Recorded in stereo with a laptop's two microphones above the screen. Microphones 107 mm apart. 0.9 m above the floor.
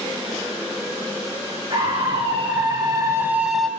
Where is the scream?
60° right (ahead or behind), 2.0 m; by 3.7 s centre (ahead or behind), 1.1 m.